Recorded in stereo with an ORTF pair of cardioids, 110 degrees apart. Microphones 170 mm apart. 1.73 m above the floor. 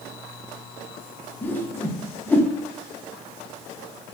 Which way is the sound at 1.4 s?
10° left.